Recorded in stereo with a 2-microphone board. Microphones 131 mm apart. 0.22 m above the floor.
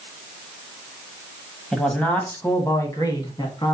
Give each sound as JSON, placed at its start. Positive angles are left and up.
{"t": 1.7, "sound": "a man speaking", "side_deg": 5, "distance_m": 1.0}